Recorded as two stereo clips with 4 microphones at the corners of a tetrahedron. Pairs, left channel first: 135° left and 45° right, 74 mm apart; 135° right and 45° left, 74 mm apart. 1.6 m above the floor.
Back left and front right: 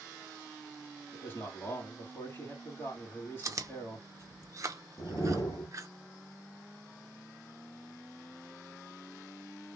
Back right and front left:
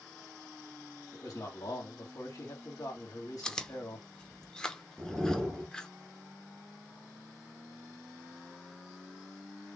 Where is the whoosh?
135° left, 2.0 m.